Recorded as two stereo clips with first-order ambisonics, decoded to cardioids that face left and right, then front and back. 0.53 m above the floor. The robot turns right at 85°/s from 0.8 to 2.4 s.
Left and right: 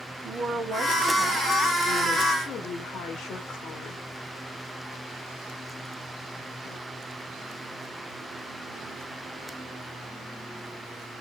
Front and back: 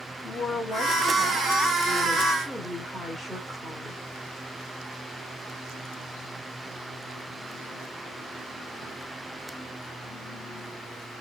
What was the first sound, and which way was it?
A woman speaking, 50° right.